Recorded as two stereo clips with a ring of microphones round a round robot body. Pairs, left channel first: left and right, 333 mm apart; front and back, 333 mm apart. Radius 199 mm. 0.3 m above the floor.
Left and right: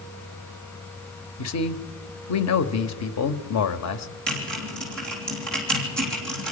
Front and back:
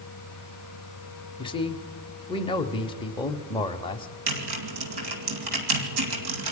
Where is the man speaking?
70° left, 1.3 m.